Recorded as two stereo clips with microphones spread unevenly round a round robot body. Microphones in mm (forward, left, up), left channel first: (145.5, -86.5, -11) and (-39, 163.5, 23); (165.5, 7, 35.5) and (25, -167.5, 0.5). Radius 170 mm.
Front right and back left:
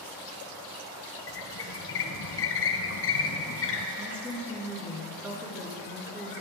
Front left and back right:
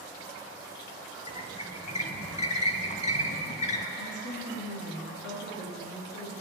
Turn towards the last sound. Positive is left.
turn(degrees=40)